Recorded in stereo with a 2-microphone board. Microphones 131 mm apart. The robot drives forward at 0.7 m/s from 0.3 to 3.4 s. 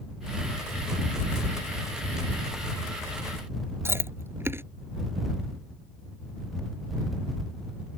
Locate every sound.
3.9 s chewing: 15° right (ahead or behind)